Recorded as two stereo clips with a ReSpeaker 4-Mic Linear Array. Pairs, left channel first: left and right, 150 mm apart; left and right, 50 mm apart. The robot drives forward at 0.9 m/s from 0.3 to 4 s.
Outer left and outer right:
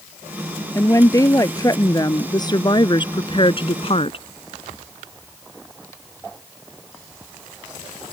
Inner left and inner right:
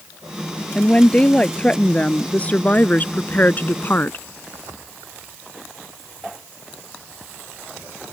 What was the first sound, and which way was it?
A woman speaking, 20° left (ahead or behind).